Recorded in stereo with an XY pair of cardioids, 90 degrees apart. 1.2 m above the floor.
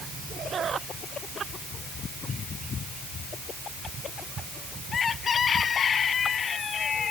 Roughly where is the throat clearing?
No throat clearing in this recording.